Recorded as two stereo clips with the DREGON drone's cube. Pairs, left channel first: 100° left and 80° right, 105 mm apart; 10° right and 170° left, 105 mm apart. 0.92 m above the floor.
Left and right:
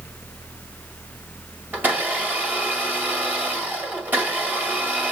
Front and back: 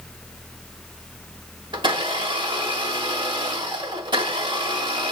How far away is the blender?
About 1.6 m.